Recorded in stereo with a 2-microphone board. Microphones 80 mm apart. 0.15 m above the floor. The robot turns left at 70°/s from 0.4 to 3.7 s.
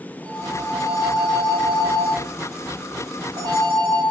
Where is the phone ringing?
150° left, 9.5 m; by 4.0 s 80° right, 9.5 m.